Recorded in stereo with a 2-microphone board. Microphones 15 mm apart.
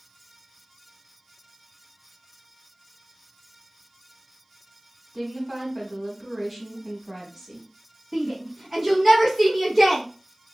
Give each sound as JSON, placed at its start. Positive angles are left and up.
{"t": 5.1, "sound": "a woman speaking", "side_deg": -25, "distance_m": 1.5}
{"t": 8.1, "sound": "a shout", "side_deg": -15, "distance_m": 1.8}